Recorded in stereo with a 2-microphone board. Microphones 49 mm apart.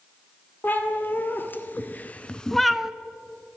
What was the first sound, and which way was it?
A cat meowing, 40° left (ahead or behind).